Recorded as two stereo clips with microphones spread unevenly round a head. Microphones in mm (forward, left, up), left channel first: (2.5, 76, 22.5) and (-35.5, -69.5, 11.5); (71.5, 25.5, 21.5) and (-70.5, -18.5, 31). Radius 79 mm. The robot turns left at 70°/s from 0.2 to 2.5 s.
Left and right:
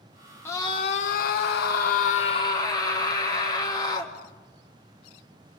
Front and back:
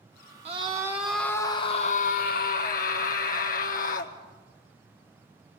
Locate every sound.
0.5 s a scream: 150° left, 1.3 m; by 4.1 s 5° left, 1.3 m